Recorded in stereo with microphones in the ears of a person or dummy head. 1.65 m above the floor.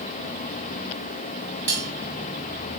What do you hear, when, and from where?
1.7 s cutlery clinking: 10° left (ahead or behind), 1.3 m